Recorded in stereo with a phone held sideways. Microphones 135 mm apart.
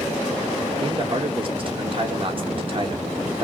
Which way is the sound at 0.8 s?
40° right (ahead or behind).